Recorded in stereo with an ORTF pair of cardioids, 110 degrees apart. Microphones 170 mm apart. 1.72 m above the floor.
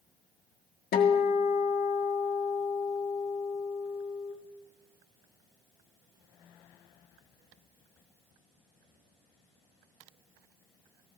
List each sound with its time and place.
0.9 s a guitar: 65° left, 1.5 m